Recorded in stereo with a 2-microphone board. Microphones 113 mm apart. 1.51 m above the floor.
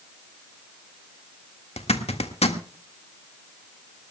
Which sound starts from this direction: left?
A zipper, at 1.8 s.